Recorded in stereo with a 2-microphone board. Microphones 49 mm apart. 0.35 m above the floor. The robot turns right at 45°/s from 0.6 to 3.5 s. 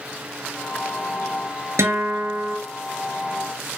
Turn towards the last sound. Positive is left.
turn(degrees=-30)